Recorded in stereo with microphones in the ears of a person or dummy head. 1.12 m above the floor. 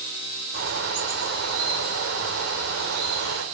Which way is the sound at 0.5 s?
80° right.